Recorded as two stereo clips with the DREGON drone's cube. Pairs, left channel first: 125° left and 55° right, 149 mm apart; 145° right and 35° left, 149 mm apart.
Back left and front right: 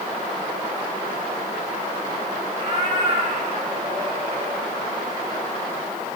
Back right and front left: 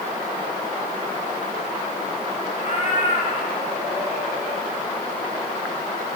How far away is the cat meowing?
About 5 m.